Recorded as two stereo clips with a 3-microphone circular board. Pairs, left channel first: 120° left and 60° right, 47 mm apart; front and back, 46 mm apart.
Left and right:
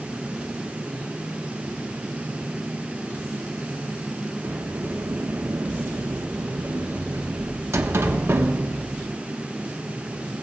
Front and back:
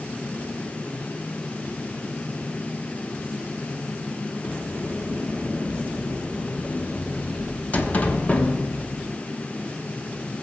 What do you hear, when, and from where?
4.4 s a sliding door: 55° right, 1.1 m